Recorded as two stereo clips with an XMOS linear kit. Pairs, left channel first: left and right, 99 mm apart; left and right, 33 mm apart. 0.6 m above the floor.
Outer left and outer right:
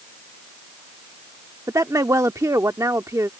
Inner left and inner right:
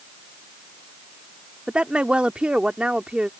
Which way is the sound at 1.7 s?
35° right (ahead or behind).